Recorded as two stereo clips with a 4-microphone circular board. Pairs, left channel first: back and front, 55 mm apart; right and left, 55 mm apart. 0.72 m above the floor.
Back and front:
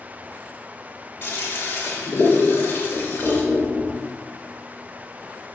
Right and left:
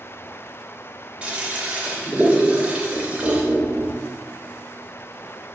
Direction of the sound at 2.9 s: 80° left.